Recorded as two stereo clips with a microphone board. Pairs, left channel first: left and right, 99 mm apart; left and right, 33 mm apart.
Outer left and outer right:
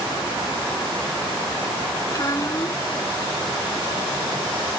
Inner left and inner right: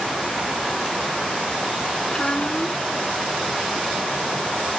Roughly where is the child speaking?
Left.